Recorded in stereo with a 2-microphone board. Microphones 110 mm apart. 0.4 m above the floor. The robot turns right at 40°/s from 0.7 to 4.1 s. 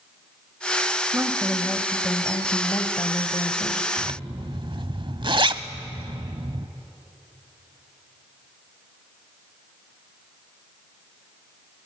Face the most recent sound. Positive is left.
turn(degrees=-50)  # may be behind; listen again after turning